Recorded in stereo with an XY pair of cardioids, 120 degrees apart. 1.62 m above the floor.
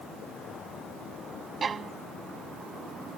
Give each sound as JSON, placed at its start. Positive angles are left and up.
{"t": 1.6, "sound": "a violin", "azimuth_deg": -35}